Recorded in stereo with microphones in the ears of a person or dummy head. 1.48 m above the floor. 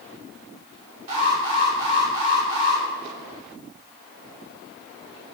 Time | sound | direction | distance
1.1 | an alarm | 45° right (ahead or behind) | 3 m